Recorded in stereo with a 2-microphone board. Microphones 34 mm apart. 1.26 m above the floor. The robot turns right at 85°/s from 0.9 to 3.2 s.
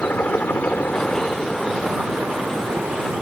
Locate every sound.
0.0 s a helicopter: 120° left; by 3.2 s 45° right